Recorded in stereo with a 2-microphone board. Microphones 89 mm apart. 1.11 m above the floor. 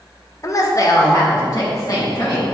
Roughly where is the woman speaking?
Left.